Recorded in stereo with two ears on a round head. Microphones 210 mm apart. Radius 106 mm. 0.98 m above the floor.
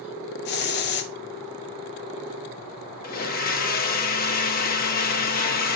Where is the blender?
40° left (ahead or behind), 1.4 m.